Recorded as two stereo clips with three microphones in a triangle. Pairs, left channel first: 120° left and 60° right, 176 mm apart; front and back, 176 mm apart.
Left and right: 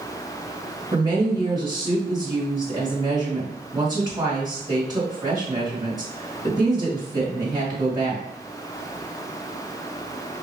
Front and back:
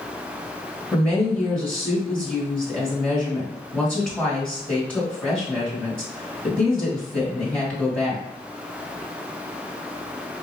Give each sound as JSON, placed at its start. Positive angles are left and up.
{"t": 0.9, "sound": "a woman speaking", "azimuth_deg": -75, "distance_m": 1.7}